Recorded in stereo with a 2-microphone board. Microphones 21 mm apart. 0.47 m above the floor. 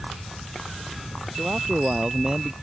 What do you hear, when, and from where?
1.3 s a man speaking: 35° right (ahead or behind)